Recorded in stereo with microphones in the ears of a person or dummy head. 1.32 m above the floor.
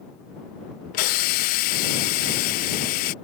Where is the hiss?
40° left (ahead or behind).